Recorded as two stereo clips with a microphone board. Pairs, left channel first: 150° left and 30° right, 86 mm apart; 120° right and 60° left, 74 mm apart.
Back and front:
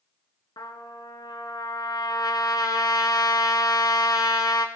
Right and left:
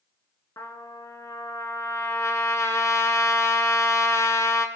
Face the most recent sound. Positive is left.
turn(degrees=-170)